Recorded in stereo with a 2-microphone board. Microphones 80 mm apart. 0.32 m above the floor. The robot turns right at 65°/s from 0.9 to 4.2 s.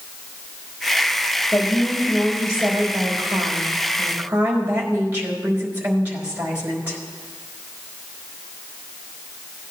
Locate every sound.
1.5 s a woman speaking: 160° left, 4.5 m; by 7.0 s 25° right, 4.5 m